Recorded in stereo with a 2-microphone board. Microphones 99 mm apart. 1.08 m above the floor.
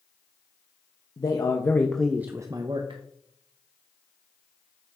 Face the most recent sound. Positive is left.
turn(degrees=-60)  # may be behind; listen again after turning